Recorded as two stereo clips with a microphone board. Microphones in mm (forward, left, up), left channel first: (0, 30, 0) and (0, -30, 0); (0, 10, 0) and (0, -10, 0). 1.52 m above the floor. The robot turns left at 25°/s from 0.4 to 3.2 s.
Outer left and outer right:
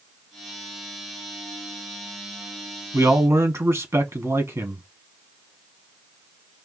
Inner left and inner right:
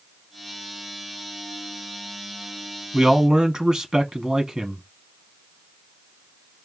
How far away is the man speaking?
About 1.3 m.